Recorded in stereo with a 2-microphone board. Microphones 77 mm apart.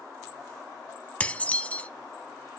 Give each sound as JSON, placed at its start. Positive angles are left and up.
{"t": 1.2, "sound": "dishes clattering", "side_deg": 20, "distance_m": 0.9}